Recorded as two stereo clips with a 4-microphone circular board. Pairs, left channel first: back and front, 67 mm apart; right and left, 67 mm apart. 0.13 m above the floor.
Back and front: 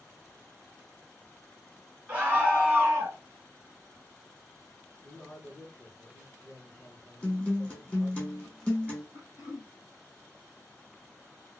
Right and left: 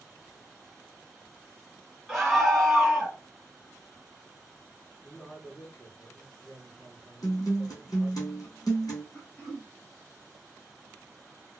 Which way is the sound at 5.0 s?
140° right.